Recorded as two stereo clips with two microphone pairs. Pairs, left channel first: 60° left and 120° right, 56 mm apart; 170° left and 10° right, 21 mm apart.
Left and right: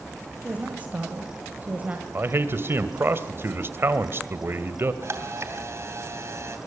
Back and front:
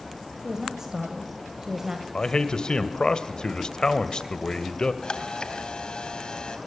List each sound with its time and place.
0.4 s a woman speaking: 65° right, 2 m
2.1 s a man speaking: 160° right, 1.9 m
5.0 s a camera shutter: 155° right, 3 m